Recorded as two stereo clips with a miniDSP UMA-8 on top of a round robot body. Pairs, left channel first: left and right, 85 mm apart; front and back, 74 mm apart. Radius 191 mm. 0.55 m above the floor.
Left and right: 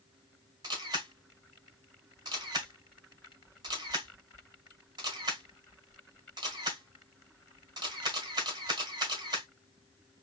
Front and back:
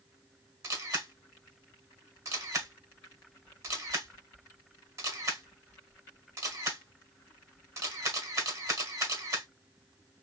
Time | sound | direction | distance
0.6 | a camera shutter | 135° right | 1.6 m